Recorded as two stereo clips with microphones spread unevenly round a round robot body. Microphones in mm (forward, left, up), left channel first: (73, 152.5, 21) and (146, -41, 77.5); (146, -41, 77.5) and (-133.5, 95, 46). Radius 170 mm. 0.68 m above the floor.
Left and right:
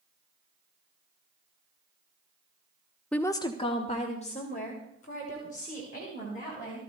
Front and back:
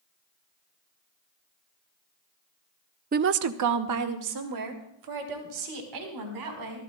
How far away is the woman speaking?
About 0.5 m.